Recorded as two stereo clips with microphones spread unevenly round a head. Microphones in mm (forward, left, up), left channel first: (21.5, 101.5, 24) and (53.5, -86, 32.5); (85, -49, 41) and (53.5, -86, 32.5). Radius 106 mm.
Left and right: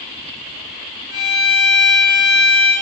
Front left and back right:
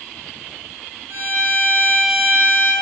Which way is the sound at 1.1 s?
90° right.